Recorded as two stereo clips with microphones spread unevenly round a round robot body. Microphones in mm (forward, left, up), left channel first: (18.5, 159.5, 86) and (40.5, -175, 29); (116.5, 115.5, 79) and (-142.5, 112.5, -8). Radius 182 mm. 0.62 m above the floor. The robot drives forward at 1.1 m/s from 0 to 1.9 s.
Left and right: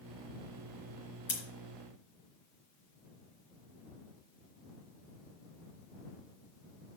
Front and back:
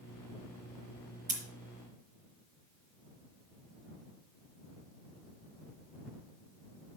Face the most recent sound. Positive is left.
turn(degrees=125)